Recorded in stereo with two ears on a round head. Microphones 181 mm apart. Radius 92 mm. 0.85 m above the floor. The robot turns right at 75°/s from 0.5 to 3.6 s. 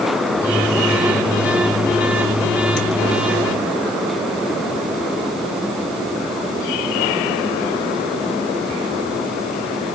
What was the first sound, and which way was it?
Only background noise.